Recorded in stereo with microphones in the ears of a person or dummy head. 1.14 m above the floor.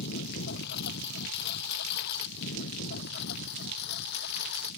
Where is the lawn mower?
60° left (ahead or behind).